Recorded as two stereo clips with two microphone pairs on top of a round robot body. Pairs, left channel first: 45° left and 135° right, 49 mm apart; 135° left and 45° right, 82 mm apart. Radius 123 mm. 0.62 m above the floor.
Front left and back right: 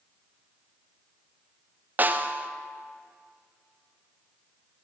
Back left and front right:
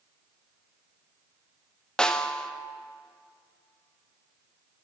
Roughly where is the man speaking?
No man speaking in this recording.